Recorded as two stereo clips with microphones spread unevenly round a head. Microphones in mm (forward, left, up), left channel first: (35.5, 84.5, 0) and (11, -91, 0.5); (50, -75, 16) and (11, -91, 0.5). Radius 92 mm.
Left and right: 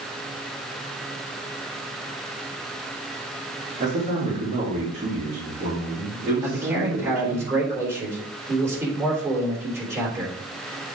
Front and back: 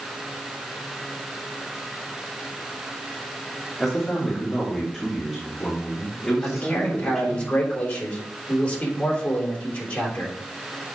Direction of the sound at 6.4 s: 25° right.